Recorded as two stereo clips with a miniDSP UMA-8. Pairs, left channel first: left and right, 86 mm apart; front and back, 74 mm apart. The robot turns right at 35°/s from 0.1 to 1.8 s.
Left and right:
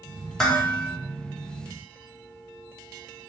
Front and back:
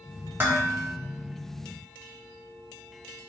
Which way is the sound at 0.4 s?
170° left.